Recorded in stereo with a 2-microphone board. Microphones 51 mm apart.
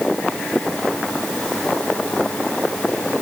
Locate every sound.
Only background noise.